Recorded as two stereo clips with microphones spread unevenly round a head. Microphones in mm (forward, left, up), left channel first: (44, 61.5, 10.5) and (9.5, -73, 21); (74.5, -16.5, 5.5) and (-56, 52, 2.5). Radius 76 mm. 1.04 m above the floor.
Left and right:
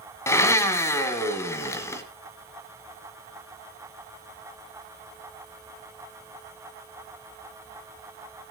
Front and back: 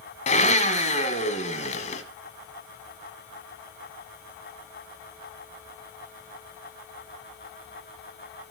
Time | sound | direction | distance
0.3 | a blender | 5° left | 1.5 m